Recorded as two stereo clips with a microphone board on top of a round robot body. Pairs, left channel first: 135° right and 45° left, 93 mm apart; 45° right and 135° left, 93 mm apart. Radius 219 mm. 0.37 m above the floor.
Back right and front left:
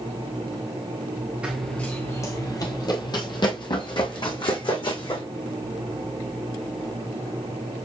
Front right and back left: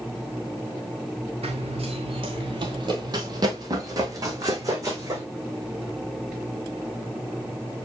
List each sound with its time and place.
1.4 s running footsteps: 125° left, 0.5 m; by 5.2 s 165° right, 2.5 m